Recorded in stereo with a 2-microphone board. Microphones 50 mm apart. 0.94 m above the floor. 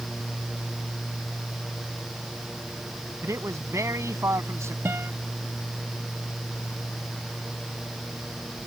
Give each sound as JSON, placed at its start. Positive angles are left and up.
{"t": 3.2, "sound": "a man speaking", "side_deg": -85}
{"t": 4.8, "sound": "a guitar", "side_deg": -55}